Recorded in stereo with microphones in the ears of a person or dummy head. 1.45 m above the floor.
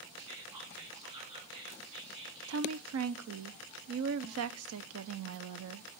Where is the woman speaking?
75° right (ahead or behind), 0.6 m.